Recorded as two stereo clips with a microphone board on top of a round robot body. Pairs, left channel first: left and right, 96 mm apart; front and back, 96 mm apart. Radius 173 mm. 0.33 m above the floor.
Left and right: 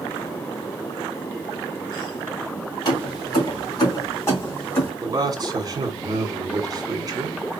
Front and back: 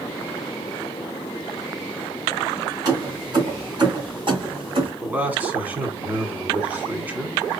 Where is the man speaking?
115° right, 2.0 m.